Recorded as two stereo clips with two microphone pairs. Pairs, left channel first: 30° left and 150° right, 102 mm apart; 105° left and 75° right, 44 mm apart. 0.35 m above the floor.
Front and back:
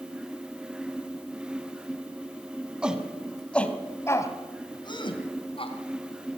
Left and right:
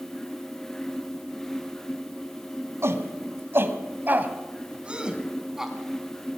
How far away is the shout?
About 3 m.